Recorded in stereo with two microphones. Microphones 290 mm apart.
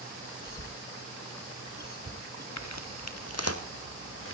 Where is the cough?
40° right (ahead or behind), 2 m.